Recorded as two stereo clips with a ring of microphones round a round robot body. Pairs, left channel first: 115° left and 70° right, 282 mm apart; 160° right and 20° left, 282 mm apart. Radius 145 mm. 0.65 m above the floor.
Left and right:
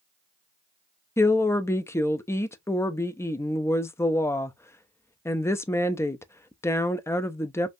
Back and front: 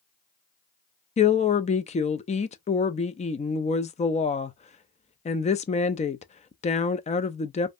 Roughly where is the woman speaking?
Behind.